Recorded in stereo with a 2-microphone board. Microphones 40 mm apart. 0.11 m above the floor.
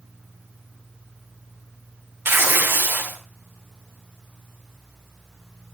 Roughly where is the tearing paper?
Right.